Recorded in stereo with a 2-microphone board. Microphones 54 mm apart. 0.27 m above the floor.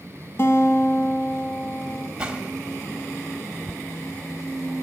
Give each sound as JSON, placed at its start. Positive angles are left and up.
{"t": 0.4, "sound": "a guitar", "side_deg": 45, "distance_m": 1.0}
{"t": 2.2, "sound": "a gunshot", "side_deg": -15, "distance_m": 1.2}